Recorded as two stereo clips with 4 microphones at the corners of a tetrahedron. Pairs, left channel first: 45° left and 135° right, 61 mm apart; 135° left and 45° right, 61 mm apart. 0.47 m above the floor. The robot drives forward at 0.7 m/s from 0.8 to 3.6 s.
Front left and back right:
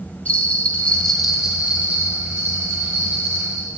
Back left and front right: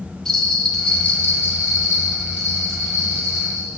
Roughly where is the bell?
Left.